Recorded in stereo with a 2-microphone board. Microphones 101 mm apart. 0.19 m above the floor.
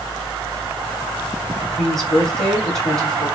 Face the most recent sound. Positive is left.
turn(degrees=5)  # may be behind; listen again after turning